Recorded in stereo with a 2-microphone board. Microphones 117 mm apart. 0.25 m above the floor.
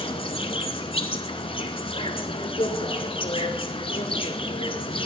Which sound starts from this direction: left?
An insect, at 0.0 s.